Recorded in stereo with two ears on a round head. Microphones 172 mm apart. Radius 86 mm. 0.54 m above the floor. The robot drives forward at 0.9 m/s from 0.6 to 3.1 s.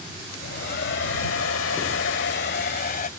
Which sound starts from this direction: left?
A hair dryer, at 0.3 s.